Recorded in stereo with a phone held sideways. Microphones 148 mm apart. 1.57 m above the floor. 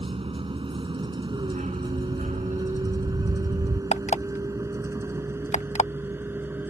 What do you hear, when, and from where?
0.0 s a vehicle: 40° right (ahead or behind); by 6.7 s 15° right (ahead or behind)
1.4 s a dog barking: 55° right (ahead or behind)
3.9 s an alarm clock: 50° left (ahead or behind)